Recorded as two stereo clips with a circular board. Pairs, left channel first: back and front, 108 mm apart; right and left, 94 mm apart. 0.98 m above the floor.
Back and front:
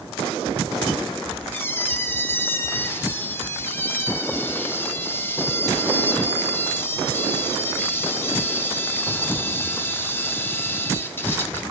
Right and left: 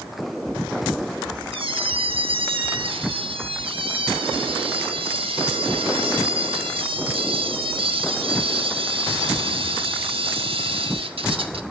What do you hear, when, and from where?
1.5 s a squeak: 110° left, 0.7 m